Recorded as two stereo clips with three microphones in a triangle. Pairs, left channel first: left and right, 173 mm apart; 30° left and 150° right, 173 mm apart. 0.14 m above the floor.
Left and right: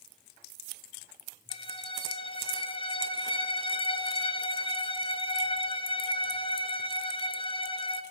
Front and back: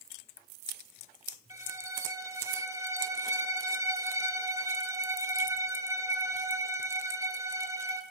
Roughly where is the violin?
Behind left.